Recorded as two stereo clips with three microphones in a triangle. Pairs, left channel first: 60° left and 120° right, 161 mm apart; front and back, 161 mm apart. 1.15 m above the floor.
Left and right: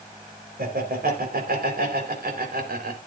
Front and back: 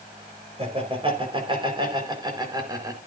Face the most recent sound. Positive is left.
turn(degrees=-115)